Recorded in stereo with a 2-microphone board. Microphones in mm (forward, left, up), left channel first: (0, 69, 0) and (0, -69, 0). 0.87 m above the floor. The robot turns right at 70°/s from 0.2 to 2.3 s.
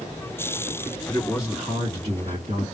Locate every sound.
1.1 s a man speaking: 155° left, 1.8 m; by 2.6 s 120° right, 1.8 m